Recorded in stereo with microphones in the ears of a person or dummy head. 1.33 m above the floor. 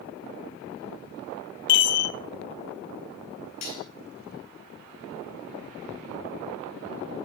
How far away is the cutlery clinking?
About 3 m.